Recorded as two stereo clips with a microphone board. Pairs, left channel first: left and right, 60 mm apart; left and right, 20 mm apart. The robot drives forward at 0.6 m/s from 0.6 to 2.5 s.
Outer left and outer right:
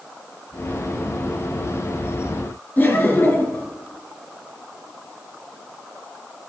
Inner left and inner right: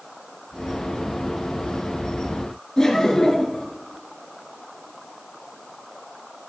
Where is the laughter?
35° left (ahead or behind), 2.5 m.